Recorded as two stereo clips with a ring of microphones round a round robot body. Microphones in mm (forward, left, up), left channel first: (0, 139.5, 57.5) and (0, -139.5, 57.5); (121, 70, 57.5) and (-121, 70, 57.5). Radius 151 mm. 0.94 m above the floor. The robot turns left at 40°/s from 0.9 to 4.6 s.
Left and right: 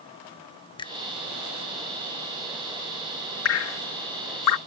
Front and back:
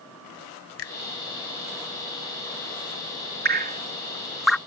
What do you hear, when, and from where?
0.8 s a finger snap: 20° left; by 1.0 s 15° left
3.5 s dripping: 130° left; by 4.6 s 85° left